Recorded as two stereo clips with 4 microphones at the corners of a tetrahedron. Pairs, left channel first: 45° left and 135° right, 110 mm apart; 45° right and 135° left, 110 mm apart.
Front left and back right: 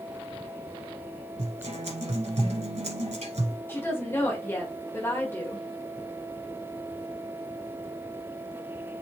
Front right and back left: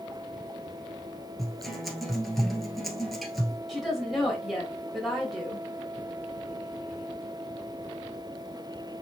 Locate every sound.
1.4 s a guitar: 135° right, 1.5 m
3.7 s a woman speaking: 45° left, 1.5 m